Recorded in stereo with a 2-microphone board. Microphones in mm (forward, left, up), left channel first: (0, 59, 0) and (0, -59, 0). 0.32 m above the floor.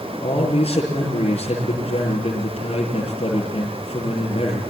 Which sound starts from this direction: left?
A man speaking, at 0.2 s.